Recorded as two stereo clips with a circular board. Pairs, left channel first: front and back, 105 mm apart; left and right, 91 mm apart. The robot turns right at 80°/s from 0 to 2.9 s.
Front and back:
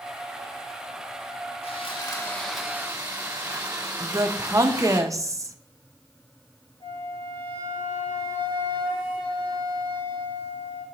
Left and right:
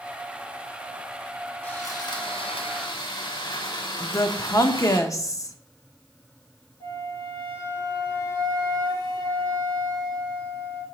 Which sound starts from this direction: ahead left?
A flute, at 6.8 s.